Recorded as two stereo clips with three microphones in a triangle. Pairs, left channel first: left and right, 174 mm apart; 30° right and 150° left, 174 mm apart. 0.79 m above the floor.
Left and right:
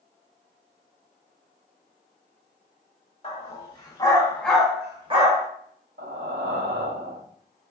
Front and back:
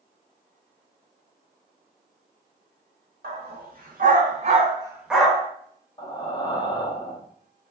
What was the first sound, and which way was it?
A dog barking, 135° left.